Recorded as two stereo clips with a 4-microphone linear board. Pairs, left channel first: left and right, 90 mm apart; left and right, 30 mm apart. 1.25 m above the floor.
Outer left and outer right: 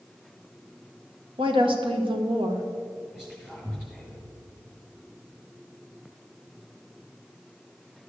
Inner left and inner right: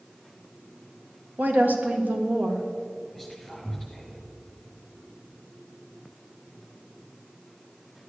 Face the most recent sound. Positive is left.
turn(degrees=-5)  # may be behind; listen again after turning